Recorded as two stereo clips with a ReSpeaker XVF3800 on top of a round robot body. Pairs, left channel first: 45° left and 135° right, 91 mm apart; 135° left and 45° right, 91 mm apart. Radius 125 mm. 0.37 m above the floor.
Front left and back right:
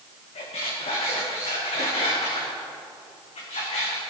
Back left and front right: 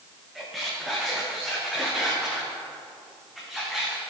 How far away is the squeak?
About 3 m.